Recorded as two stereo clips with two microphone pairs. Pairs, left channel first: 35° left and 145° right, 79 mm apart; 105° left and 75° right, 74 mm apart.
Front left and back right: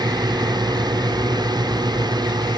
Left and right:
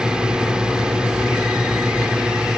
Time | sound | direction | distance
0.0 | a drone | 150° right | ?